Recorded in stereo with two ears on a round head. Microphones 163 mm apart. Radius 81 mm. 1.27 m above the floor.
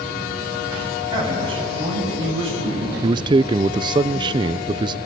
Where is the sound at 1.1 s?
25° right (ahead or behind), 8.5 m; by 2.9 s 35° right (ahead or behind), 9.5 m.